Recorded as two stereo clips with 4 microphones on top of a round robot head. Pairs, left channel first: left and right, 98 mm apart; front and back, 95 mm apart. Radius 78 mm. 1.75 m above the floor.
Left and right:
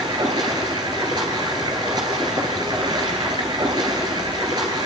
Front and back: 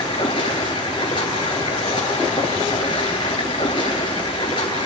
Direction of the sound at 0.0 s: 40° right.